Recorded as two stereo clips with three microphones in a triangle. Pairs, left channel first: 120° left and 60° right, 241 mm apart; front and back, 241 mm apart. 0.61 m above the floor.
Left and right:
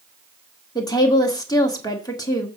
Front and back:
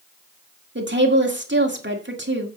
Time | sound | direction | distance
0.8 | a woman speaking | 170° right | 1.8 m